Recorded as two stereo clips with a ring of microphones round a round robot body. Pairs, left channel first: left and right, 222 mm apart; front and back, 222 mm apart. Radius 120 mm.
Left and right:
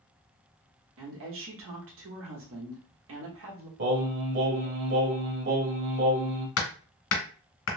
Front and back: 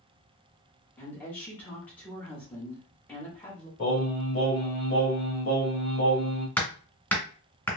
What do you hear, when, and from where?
1.0 s a woman speaking: 80° right, 1.1 m
3.8 s singing: 55° right, 1.3 m
6.6 s hammering: 85° left, 1.7 m